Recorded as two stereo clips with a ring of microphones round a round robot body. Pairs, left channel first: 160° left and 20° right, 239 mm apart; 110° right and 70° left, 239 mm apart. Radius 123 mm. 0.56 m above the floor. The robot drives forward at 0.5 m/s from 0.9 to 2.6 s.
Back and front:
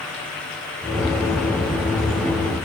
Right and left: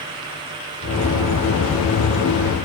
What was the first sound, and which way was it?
Only background noise.